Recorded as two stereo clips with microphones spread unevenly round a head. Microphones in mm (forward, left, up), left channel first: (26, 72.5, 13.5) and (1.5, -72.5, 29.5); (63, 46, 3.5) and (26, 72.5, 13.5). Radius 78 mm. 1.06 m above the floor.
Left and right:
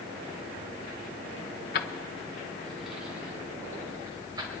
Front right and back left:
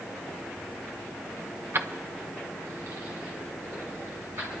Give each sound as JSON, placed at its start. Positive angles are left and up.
{"t": 1.7, "sound": "keys jangling", "azimuth_deg": 115, "distance_m": 0.9}